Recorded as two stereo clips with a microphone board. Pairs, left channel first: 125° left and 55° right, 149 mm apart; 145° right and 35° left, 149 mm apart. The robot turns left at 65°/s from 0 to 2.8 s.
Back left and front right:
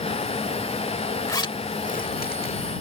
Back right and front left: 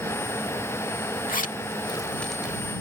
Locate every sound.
1.3 s a zipper: 165° right; by 2.6 s 105° left